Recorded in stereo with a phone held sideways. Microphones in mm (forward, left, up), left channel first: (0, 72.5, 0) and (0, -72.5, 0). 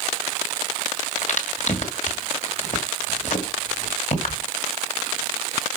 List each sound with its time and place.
1.2 s a crack: 55° left (ahead or behind), 2.0 m